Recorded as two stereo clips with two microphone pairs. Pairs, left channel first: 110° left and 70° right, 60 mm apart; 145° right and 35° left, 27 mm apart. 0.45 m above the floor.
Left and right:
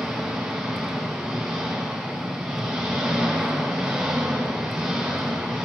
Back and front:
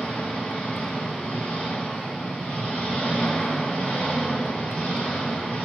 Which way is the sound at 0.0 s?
150° right.